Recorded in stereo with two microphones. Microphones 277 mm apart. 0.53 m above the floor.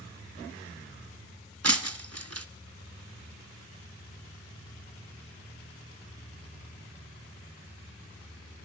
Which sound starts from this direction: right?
Breaking glass, at 1.6 s.